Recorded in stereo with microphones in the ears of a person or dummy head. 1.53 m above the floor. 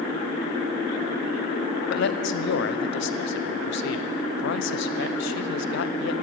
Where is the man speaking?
70° left (ahead or behind), 0.7 m.